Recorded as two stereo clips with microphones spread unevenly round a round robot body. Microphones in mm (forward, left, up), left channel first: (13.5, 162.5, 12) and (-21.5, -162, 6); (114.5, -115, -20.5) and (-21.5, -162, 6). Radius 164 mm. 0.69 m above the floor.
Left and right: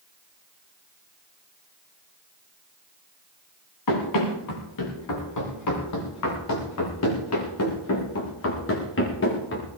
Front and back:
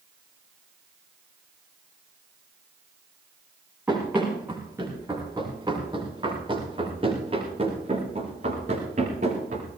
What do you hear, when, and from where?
3.9 s running footsteps: 115° left, 6.5 m; by 9.7 s 140° left, 5.5 m